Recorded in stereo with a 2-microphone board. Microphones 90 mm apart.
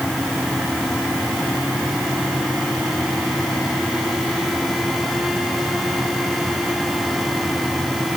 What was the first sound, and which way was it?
Only background noise.